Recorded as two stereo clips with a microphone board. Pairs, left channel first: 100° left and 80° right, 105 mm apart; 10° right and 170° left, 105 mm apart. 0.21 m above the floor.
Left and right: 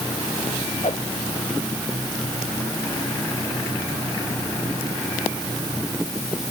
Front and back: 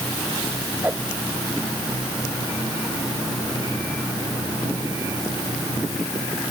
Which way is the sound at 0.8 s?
95° left.